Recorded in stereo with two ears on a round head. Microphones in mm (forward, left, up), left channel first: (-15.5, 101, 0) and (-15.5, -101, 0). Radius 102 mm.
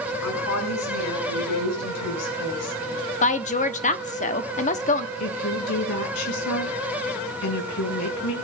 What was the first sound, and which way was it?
A woman speaking, 85° left.